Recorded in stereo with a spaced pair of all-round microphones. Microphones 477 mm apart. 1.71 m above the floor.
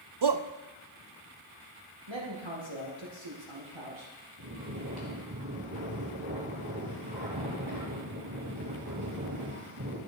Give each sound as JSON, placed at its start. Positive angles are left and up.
{"t": 0.2, "sound": "a shout", "side_deg": -60, "distance_m": 0.5}
{"t": 2.1, "sound": "a man speaking", "side_deg": -65, "distance_m": 2.5}
{"t": 4.4, "sound": "snoring", "side_deg": -50, "distance_m": 3.5}